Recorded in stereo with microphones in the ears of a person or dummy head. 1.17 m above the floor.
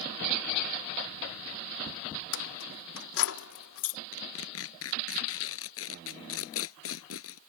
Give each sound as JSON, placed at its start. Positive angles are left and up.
{"t": 2.3, "sound": "keys jangling", "side_deg": 70}
{"t": 4.1, "sound": "tearing paper", "side_deg": 75}